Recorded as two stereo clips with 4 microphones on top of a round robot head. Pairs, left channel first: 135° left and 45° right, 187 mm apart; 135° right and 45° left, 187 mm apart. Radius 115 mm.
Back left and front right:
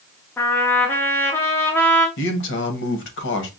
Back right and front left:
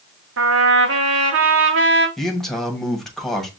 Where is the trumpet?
55° left, 0.7 m.